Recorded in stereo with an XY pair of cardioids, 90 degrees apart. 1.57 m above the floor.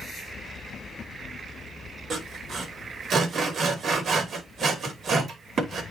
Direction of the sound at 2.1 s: 60° right.